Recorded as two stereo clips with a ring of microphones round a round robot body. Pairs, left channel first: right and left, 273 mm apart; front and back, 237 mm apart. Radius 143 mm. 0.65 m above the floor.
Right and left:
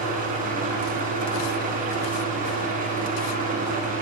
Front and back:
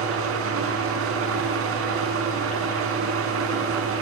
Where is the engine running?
150° left, 6 m.